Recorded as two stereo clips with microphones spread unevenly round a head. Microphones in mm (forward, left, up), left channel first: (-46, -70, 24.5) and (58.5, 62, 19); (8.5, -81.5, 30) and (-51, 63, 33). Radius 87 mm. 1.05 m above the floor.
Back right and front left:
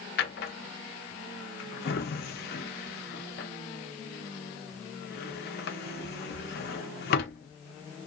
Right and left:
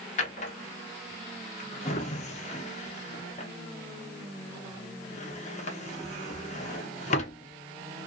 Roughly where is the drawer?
Right.